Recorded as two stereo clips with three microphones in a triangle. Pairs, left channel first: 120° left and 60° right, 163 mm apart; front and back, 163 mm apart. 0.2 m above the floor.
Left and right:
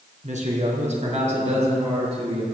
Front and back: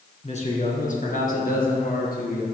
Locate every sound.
0.2 s a man speaking: 35° right, 1.8 m; by 2.4 s 10° right, 3 m